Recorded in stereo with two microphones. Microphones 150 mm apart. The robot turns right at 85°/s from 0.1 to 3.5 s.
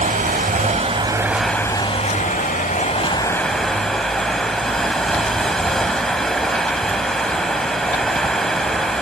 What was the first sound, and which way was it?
Running water, 115° right.